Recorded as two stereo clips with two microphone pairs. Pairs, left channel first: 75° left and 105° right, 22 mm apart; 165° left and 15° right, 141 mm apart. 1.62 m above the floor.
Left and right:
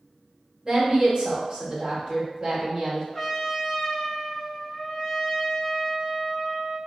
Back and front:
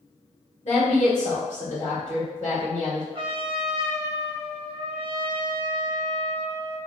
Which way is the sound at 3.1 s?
20° left.